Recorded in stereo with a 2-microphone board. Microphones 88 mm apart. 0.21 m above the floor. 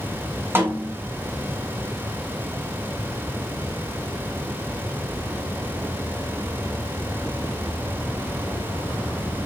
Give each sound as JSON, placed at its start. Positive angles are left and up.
{"t": 0.6, "sound": "a snare drum", "side_deg": -25, "distance_m": 1.3}